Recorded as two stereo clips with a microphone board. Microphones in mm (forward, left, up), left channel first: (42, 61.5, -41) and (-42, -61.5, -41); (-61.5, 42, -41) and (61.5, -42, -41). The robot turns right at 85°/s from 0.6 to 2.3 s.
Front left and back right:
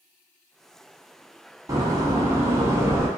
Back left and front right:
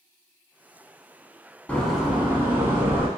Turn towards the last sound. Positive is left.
turn(degrees=-95)